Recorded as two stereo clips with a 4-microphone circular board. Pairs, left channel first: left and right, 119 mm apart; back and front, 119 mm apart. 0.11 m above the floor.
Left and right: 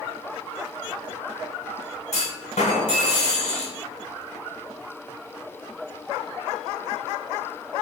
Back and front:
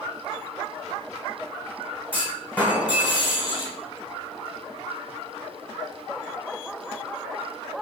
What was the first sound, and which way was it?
A clunk, 105° left.